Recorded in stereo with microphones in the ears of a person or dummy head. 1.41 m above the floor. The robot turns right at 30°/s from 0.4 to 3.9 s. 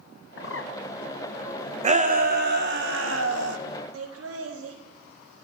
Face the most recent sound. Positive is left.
turn(degrees=-85)